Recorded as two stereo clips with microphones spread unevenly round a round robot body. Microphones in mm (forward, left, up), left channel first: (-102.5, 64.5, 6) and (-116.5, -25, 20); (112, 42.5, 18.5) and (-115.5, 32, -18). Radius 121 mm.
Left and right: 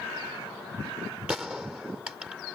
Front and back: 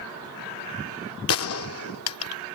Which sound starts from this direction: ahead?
A gunshot, at 1.3 s.